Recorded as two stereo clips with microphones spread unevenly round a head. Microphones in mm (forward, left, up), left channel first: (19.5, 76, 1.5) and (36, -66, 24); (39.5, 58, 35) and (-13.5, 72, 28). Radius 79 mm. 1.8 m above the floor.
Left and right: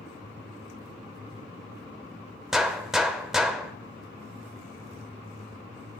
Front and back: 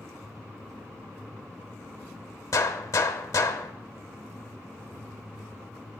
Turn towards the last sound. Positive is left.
turn(degrees=0)